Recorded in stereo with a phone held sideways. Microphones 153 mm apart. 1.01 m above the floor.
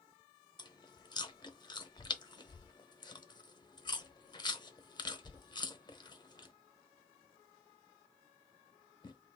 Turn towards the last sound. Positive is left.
turn(degrees=30)  # may be behind; listen again after turning